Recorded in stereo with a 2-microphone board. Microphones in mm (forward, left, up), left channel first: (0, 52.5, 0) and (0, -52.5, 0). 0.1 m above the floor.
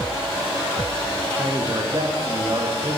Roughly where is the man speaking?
Right.